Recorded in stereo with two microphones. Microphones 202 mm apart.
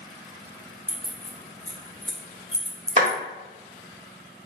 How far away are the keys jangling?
About 1.7 m.